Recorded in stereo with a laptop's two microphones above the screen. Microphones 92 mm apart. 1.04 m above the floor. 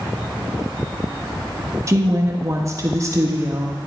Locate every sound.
1.9 s a woman speaking: 35° right (ahead or behind), 1.5 m